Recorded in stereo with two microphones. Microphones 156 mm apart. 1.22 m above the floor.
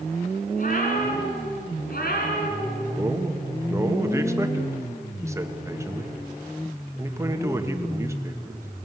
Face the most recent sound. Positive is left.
turn(degrees=-15)  # may be behind; listen again after turning